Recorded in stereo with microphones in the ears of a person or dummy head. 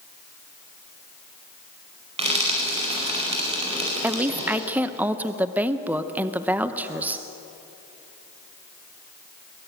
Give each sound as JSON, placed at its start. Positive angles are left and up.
{"t": 2.2, "sound": "frying", "side_deg": -40, "distance_m": 4.5}
{"t": 4.0, "sound": "a woman speaking", "side_deg": -5, "distance_m": 0.7}